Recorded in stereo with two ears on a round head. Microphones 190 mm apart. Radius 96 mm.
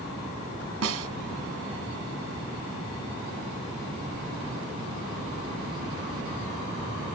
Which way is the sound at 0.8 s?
65° right (ahead or behind).